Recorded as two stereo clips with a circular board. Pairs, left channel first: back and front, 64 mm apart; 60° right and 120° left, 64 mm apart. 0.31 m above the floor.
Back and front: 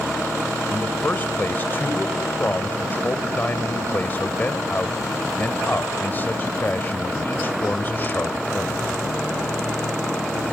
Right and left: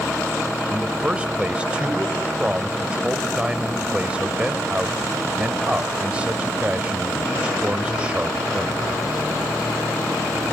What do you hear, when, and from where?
0.7 s a man speaking: 175° left, 1.3 m